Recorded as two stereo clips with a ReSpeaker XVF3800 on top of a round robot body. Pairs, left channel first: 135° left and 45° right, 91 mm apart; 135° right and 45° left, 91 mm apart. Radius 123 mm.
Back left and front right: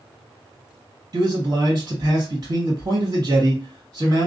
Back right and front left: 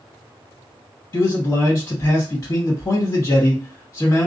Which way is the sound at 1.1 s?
90° right.